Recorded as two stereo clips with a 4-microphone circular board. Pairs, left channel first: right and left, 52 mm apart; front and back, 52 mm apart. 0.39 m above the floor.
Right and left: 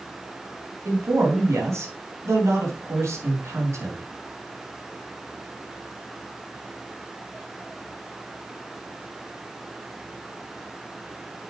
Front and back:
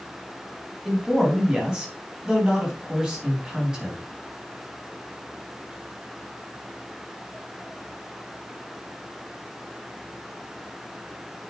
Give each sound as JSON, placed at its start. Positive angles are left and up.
{"t": 0.8, "sound": "a man speaking", "azimuth_deg": 110, "distance_m": 3.5}